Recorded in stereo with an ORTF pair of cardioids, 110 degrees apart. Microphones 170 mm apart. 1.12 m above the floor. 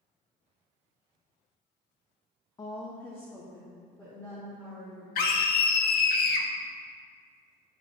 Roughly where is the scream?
Ahead left.